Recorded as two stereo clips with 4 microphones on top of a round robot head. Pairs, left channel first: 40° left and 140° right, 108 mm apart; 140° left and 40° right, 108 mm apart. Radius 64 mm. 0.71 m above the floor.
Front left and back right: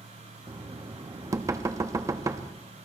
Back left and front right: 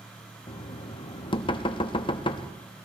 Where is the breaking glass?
No breaking glass in this recording.